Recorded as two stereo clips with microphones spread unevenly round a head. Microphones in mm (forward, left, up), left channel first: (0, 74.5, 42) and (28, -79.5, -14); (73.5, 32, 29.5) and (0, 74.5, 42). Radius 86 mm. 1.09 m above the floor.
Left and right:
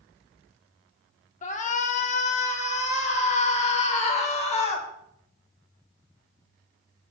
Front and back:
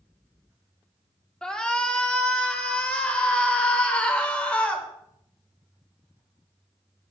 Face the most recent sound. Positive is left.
turn(degrees=45)